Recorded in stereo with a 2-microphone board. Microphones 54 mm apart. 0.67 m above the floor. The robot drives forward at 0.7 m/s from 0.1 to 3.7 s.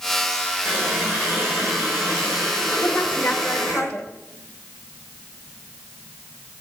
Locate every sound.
0.7 s a running tap: 30° right (ahead or behind), 7 m; by 3.8 s 25° right (ahead or behind), 8.5 m
2.8 s a woman speaking: 20° left (ahead or behind), 2.5 m